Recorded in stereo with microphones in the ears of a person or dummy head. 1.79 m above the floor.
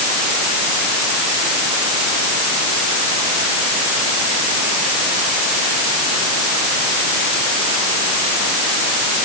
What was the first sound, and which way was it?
Only background noise.